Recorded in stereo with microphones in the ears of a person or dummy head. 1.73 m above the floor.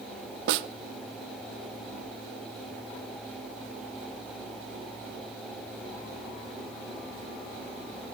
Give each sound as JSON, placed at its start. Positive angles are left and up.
{"t": 0.5, "sound": "a snare drum", "side_deg": -65, "distance_m": 0.6}